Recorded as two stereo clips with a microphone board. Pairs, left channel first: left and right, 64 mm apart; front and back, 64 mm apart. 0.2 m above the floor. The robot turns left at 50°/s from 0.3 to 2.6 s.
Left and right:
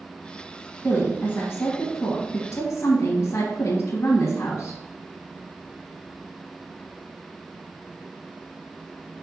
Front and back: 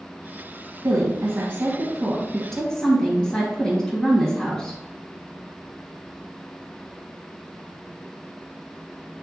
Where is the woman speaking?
160° left, 2 m; by 4.8 s 70° left, 2 m.